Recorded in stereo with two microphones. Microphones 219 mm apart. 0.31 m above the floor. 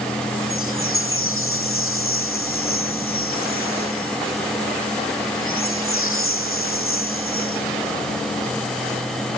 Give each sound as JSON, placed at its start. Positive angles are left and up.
{"t": 0.5, "sound": "a chime", "side_deg": 75}